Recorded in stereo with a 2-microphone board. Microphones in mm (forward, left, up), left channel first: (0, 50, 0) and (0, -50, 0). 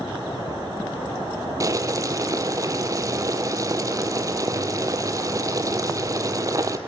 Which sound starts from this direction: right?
Boiling, at 1.6 s.